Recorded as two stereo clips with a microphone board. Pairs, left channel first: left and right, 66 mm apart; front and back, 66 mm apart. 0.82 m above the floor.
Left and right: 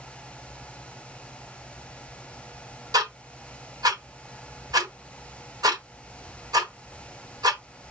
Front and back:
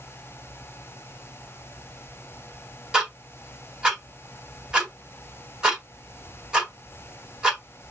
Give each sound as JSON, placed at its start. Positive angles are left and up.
{"t": 2.9, "sound": "ticking", "azimuth_deg": -100, "distance_m": 1.6}